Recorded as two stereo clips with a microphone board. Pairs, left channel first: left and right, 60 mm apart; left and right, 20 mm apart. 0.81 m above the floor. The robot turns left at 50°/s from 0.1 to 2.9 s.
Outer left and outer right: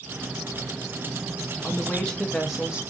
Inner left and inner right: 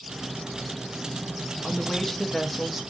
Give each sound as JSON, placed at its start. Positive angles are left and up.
{"t": 1.6, "sound": "a woman speaking", "azimuth_deg": 40, "distance_m": 0.6}